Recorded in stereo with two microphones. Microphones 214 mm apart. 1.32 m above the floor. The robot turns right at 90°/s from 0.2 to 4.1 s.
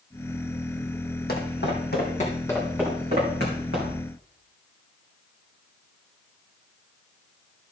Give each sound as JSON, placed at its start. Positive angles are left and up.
{"t": 1.3, "sound": "footsteps", "side_deg": 50, "distance_m": 2.0}